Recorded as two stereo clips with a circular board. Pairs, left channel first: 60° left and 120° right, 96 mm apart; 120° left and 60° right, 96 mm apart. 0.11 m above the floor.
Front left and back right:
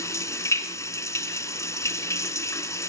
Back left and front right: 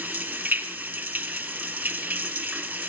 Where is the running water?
10° left, 2 m.